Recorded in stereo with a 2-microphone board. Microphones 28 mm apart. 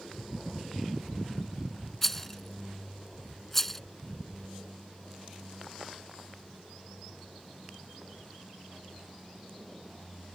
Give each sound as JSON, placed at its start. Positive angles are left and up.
{"t": 2.0, "sound": "a rattle", "side_deg": 10}